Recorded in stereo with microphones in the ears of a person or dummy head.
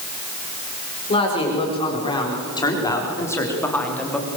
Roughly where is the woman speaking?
Left.